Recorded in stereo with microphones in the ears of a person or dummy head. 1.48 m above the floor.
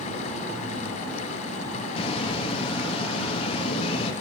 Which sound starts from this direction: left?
A bird, at 2.0 s.